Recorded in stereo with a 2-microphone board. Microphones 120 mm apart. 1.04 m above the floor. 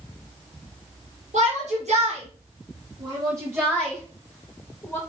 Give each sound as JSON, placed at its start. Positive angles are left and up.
{"t": 1.3, "sound": "a shout", "side_deg": -80, "distance_m": 1.4}